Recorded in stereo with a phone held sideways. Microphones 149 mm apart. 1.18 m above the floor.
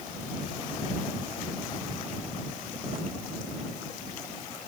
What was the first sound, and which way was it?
Only background noise.